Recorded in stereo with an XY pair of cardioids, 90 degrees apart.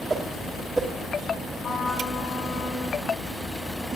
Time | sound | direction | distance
0.1 | a whoosh | 25° right | 1.3 m
1.6 | a trumpet | 70° left | 5 m